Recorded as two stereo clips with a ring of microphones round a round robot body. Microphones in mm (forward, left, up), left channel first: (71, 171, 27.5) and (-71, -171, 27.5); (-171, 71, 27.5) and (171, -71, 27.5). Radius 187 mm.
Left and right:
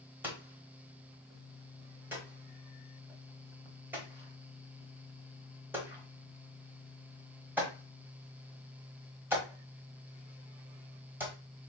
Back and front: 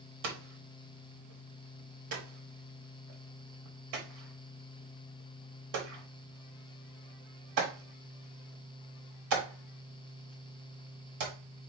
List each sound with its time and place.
0.2 s hammering: 30° right, 1.1 m